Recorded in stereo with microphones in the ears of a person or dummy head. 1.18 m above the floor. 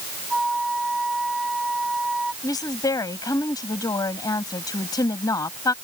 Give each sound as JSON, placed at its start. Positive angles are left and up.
{"t": 0.3, "sound": "a flute", "side_deg": 5}
{"t": 2.4, "sound": "a woman speaking", "side_deg": 25}